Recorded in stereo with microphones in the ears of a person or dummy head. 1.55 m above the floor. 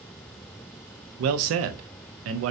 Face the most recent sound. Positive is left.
turn(degrees=-70)  # may be behind; listen again after turning